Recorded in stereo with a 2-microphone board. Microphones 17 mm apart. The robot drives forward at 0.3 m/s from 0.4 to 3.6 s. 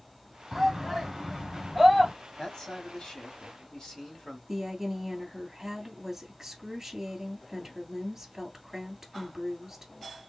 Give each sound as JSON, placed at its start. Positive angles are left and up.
{"t": 0.5, "sound": "a shout", "side_deg": -25, "distance_m": 1.6}
{"t": 2.4, "sound": "a man speaking", "side_deg": 40, "distance_m": 1.8}
{"t": 4.5, "sound": "a woman speaking", "side_deg": -25, "distance_m": 2.5}